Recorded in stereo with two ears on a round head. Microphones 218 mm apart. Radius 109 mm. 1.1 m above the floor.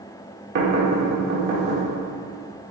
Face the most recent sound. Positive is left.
turn(degrees=-45)  # may be behind; listen again after turning